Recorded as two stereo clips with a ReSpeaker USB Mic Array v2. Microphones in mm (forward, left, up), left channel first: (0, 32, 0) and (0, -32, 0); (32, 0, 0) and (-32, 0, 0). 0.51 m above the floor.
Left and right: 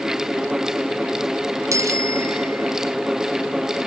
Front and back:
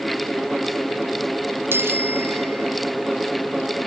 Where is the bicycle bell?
125° right; by 2.8 s 130° right.